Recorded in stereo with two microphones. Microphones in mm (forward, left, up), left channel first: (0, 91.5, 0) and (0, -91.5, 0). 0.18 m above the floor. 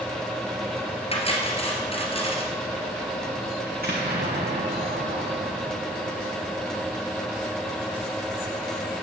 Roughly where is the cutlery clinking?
Left.